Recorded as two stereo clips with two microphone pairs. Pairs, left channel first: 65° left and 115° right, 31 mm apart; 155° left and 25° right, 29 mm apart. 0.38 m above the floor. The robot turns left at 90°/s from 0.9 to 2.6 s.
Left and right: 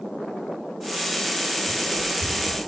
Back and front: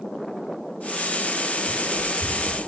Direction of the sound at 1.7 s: 45° right.